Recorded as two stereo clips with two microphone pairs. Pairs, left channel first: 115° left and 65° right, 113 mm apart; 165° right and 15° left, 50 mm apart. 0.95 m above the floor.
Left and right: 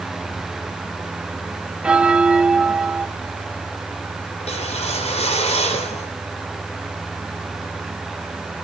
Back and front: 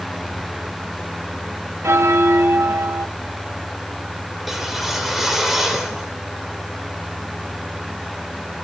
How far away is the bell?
About 1.4 m.